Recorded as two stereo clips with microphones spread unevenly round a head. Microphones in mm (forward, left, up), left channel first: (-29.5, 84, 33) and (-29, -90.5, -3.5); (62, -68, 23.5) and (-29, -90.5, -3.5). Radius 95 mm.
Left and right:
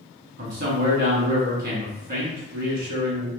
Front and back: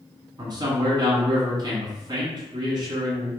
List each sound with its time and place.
0.4 s a man speaking: 120° right, 1.8 m